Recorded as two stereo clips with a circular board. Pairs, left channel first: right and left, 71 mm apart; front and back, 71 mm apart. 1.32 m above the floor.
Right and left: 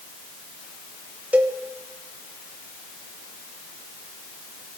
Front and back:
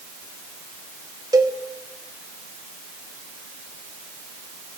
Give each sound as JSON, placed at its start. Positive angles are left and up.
{"t": 1.3, "sound": "a cowbell", "azimuth_deg": 155, "distance_m": 1.2}